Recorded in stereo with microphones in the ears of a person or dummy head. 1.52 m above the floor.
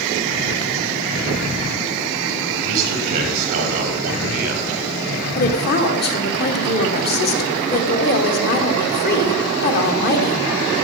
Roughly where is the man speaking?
Right.